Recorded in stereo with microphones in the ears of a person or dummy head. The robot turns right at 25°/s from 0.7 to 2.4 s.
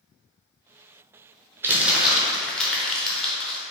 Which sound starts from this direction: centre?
Crumpling, at 1.6 s.